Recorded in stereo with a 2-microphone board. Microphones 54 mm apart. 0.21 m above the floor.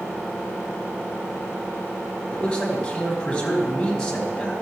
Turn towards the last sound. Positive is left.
turn(degrees=15)  # may be behind; listen again after turning